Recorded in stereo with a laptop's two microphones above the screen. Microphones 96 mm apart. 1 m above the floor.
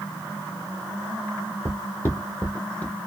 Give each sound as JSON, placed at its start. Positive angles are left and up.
{"t": 1.6, "sound": "footsteps", "side_deg": 25, "distance_m": 1.5}